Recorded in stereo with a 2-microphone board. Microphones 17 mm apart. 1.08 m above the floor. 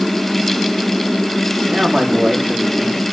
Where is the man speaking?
65° right (ahead or behind), 2.5 m; by 3.1 s 80° right, 3.5 m.